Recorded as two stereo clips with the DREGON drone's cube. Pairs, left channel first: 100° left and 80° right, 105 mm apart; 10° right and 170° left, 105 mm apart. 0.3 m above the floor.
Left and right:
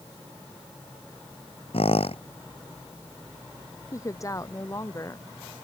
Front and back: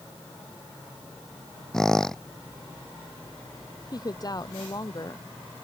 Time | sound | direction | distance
1.7 | a squeak | 75° left | ?
3.9 | a woman speaking | 40° left | ?